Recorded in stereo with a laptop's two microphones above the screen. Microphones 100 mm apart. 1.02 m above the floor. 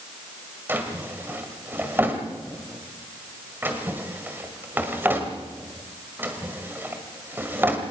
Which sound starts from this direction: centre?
A drawer, at 0.7 s.